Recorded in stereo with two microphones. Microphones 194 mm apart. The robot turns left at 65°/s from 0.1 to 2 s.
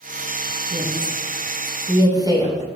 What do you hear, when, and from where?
0.7 s a woman speaking: 65° right (ahead or behind), 3.5 m; by 2.6 s 20° right (ahead or behind), 3.5 m